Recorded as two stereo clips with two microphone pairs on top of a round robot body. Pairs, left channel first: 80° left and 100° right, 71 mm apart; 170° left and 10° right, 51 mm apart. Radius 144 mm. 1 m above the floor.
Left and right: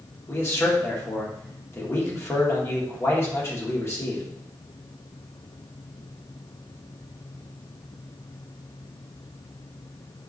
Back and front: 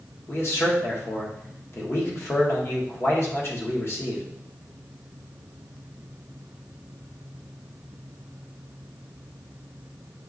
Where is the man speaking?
135° left, 1.0 m.